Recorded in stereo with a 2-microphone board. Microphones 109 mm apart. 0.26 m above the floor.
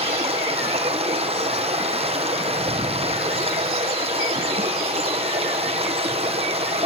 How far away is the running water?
About 3.5 m.